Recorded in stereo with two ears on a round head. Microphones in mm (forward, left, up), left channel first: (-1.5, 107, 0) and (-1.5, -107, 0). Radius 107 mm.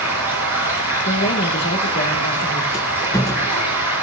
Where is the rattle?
15° left (ahead or behind), 1.1 m.